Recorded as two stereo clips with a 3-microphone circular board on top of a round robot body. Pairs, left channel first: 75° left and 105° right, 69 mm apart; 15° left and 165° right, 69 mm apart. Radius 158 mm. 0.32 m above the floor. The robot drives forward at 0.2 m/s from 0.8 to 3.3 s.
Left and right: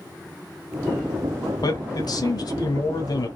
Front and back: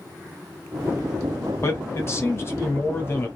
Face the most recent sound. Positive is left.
turn(degrees=70)